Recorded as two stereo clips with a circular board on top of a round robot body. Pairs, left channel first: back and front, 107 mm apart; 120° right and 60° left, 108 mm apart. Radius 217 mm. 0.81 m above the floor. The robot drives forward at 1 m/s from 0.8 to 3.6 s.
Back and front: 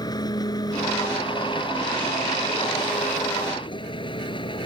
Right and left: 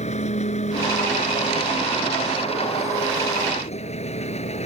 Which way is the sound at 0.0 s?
125° right.